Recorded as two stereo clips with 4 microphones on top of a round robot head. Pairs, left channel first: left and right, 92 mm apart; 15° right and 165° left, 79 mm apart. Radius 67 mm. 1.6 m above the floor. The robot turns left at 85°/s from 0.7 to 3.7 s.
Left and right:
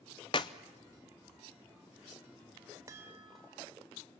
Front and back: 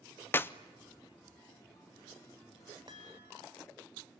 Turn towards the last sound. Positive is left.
turn(degrees=155)